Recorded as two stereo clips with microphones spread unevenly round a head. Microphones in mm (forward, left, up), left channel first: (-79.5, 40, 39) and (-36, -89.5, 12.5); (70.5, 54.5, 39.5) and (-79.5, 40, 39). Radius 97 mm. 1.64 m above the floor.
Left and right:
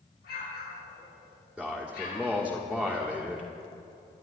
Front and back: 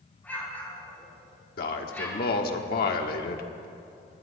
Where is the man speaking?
15° left, 1.3 m.